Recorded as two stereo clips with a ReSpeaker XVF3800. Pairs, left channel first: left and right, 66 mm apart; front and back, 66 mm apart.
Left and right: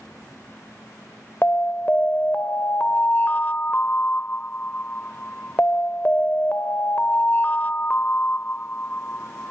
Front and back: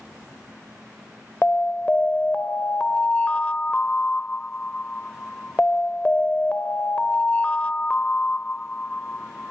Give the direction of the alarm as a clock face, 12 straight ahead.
10 o'clock.